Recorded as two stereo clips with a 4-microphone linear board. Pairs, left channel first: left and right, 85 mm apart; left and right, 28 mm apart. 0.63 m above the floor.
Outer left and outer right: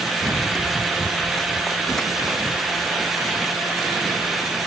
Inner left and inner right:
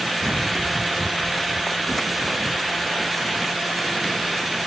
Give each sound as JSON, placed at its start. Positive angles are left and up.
{"t": 0.2, "sound": "running footsteps", "side_deg": 5}